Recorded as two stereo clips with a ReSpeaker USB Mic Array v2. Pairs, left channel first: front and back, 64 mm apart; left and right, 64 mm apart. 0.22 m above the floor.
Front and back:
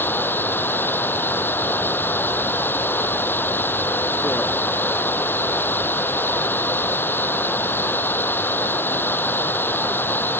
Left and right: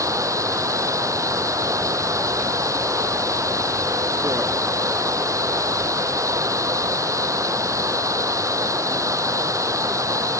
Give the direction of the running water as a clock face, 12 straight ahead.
2 o'clock.